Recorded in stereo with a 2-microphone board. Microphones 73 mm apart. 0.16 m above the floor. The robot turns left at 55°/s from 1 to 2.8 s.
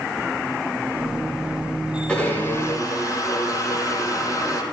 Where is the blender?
165° left, 7.5 m; by 4.6 s 125° left, 7.5 m.